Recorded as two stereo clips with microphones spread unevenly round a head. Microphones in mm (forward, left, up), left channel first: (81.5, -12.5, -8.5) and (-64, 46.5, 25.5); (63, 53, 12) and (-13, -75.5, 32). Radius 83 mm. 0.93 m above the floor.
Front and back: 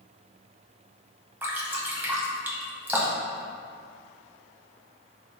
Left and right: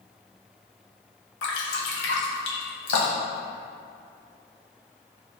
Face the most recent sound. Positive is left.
turn(degrees=85)